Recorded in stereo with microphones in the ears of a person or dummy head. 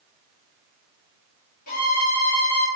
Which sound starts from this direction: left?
A violin, at 1.7 s.